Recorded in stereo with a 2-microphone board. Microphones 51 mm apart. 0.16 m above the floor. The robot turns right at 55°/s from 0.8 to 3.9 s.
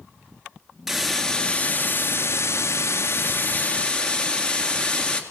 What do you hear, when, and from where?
0.9 s a hiss: 5° right, 1.7 m; by 5.2 s 160° left, 1.7 m